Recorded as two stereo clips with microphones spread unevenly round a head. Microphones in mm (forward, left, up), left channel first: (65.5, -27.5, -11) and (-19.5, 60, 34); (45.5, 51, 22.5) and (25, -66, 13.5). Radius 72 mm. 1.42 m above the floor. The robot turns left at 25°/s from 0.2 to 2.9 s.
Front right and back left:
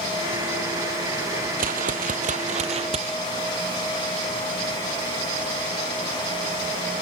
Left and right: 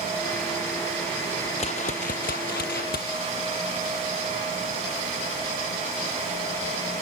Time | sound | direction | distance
1.6 | a whoosh | 130° left | ?